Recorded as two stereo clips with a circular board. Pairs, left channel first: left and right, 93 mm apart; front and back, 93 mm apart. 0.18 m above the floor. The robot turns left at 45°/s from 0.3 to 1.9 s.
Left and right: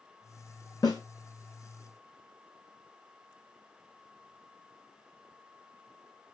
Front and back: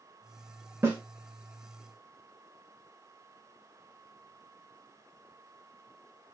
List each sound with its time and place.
0.8 s a snare drum: 130° left, 1.2 m; by 1.0 s 120° left, 1.2 m